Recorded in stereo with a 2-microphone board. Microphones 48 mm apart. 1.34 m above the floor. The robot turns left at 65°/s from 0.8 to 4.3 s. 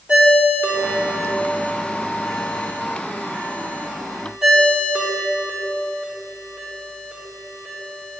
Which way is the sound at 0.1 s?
35° right (ahead or behind).